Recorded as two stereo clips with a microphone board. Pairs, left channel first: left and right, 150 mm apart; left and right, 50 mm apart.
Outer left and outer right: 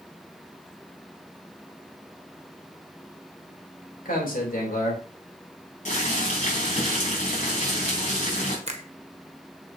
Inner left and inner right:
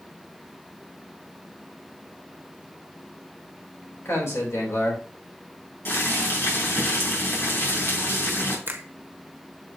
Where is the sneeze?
No sneeze in this recording.